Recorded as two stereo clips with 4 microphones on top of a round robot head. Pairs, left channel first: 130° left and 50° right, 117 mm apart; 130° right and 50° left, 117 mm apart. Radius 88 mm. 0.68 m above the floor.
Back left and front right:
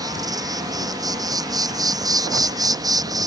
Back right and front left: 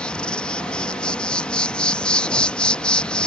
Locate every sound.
0.0 s an insect: 60° right